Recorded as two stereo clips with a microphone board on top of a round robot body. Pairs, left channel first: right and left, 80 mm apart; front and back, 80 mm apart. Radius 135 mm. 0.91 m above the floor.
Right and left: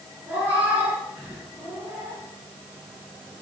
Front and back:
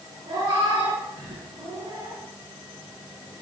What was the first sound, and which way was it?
A cat meowing, 160° left.